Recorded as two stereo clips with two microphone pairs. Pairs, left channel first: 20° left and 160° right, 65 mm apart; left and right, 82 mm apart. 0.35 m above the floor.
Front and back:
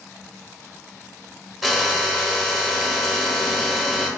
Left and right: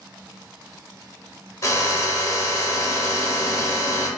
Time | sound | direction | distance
1.6 | a drill | 115° left | 0.6 m